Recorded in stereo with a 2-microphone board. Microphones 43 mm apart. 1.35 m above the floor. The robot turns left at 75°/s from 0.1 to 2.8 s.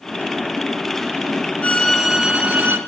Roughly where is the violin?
Ahead left.